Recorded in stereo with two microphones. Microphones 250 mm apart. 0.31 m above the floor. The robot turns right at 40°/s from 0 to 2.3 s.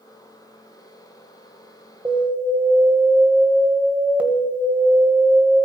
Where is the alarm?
15° right (ahead or behind), 1.7 m; by 5.7 s 5° right (ahead or behind), 1.7 m.